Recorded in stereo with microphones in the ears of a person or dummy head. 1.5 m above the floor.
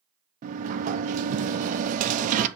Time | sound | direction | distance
0.4 | a sliding door | 35° right (ahead or behind) | 0.6 m